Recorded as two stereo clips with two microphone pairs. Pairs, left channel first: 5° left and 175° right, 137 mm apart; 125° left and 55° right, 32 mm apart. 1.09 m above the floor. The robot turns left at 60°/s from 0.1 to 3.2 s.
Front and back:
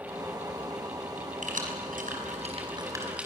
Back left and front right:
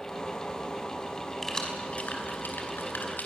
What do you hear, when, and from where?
1.4 s keys jangling: 150° right, 5 m; by 3.3 s 105° left, 5 m